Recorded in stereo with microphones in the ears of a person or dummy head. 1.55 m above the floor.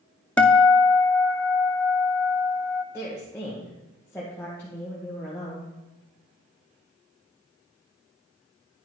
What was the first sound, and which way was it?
A guitar, 5° left (ahead or behind).